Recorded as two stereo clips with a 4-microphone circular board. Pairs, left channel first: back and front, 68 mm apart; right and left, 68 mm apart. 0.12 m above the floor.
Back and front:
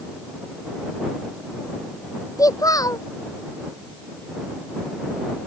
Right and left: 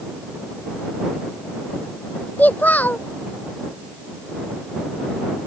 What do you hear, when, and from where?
2.4 s a child speaking: 155° right